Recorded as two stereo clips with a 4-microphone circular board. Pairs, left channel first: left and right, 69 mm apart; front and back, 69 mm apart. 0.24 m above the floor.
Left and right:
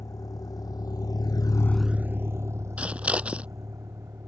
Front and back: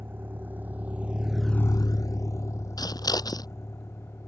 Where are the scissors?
20° right.